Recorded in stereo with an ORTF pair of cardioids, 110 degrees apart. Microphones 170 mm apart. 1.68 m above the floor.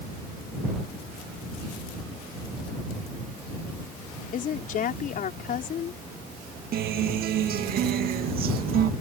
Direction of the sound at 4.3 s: 55° left.